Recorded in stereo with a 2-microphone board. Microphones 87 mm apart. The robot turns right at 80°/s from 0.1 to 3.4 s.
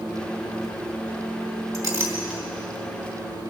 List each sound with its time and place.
1.7 s a clink: 55° right (ahead or behind), 2.5 m; by 2.4 s centre (ahead or behind), 2.5 m